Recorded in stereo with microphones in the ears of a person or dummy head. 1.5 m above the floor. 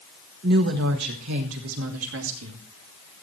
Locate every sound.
0.4 s a woman speaking: 55° right (ahead or behind), 1.3 m; by 2.6 s 85° right, 2.0 m